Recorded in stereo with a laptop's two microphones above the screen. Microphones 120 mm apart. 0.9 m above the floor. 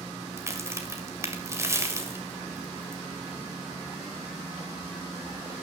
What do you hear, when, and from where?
0.4 s a crack: 20° right (ahead or behind), 1.7 m